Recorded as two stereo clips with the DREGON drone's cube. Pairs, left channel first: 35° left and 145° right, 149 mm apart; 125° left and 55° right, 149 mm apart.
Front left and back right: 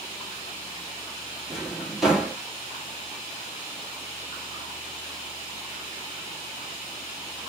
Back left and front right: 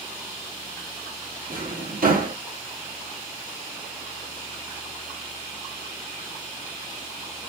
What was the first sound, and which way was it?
A drawer, 60° right.